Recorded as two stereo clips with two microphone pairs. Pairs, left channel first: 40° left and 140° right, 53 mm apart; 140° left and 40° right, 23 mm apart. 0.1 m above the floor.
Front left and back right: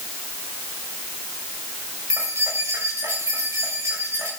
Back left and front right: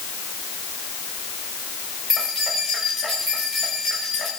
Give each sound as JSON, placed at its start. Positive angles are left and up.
{"t": 2.1, "sound": "keys jangling", "azimuth_deg": -120, "distance_m": 9.5}